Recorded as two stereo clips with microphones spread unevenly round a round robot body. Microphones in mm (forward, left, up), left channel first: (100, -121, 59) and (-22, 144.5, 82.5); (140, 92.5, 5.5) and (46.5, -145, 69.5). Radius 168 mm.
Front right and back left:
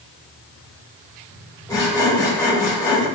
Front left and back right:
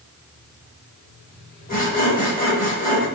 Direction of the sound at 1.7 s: 15° left.